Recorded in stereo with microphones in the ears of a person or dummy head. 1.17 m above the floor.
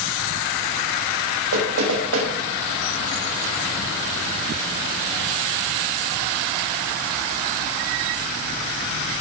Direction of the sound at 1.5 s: 80° right.